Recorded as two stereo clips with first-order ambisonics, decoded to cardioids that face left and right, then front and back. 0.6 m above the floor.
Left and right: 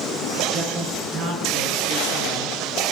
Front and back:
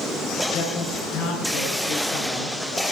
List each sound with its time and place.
0.5 s a man speaking: 40° right, 6 m; by 2.5 s 50° right, 6.5 m